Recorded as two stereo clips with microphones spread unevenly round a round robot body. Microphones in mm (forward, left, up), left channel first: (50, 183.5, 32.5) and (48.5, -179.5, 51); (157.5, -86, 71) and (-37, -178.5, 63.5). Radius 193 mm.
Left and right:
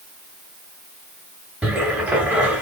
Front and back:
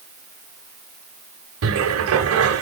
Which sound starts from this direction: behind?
A cupboard door, at 1.6 s.